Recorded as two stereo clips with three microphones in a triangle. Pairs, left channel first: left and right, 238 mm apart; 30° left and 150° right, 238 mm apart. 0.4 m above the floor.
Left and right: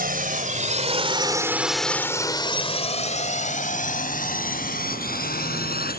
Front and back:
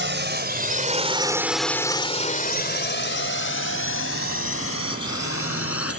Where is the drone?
130° right; by 6.0 s 40° left.